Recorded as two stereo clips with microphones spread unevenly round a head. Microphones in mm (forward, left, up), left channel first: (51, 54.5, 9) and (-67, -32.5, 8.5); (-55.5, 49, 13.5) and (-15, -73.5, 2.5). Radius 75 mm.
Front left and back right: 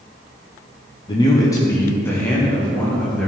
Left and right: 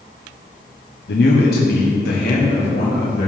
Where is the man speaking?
100° left, 1.2 m; by 3.3 s 120° left, 2.5 m.